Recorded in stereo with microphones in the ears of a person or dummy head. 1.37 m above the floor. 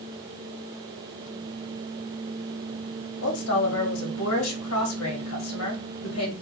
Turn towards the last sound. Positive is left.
turn(degrees=75)  # may be behind; listen again after turning